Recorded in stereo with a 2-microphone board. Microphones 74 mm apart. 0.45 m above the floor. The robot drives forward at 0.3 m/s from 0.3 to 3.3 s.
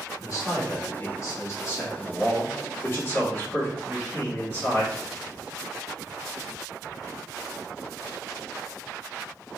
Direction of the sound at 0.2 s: 50° left (ahead or behind).